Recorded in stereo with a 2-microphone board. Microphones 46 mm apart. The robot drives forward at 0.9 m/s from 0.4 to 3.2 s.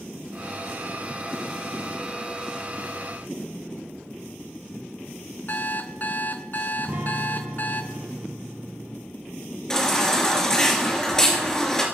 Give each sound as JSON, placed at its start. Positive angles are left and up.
{"t": 5.5, "sound": "an alarm clock", "side_deg": 45, "distance_m": 0.7}
{"t": 6.8, "sound": "a guitar", "side_deg": -80, "distance_m": 6.0}
{"t": 9.7, "sound": "a baby crying", "side_deg": 10, "distance_m": 2.5}